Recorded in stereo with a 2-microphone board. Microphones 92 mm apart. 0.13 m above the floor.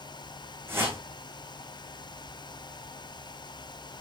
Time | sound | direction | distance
0.7 | a whoosh | 25° right (ahead or behind) | 4.5 m